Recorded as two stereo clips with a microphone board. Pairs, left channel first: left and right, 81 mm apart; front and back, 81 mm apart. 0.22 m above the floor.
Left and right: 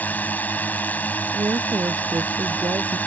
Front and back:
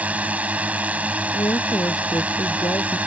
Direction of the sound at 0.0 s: 130° left.